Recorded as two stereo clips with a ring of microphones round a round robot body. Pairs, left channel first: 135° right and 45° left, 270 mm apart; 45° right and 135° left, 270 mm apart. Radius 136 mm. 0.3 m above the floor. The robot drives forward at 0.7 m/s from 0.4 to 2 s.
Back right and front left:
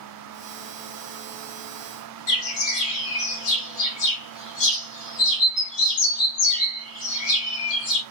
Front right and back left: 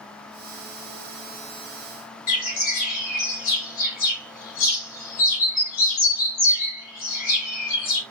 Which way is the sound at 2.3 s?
100° right.